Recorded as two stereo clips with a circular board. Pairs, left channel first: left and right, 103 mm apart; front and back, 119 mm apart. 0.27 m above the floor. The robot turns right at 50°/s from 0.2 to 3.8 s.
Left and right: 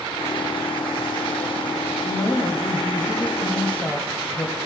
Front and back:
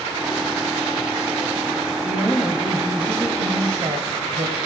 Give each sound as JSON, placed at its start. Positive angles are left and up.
{"t": 2.0, "sound": "a woman speaking", "azimuth_deg": 65, "distance_m": 1.3}